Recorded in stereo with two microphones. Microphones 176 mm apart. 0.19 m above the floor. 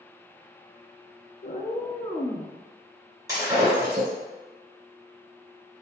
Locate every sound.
1.4 s a cat meowing: 60° left (ahead or behind), 0.6 m; by 2.5 s 5° left (ahead or behind), 0.6 m
3.3 s breaking glass: 20° right (ahead or behind), 1.7 m